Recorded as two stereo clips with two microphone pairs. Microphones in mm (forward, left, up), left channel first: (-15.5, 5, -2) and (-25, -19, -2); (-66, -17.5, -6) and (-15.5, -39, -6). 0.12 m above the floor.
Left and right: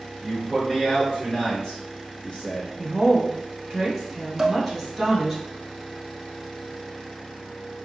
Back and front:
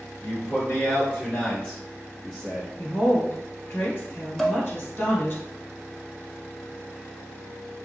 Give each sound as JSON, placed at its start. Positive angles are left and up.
{"t": 0.2, "sound": "a man speaking", "azimuth_deg": 160, "distance_m": 1.8}
{"t": 2.8, "sound": "a woman speaking", "azimuth_deg": 155, "distance_m": 1.6}
{"t": 4.4, "sound": "dishes clattering", "azimuth_deg": -135, "distance_m": 0.9}